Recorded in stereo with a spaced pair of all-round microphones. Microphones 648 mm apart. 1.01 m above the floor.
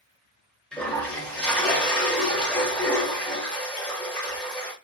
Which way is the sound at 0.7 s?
Centre (ahead or behind).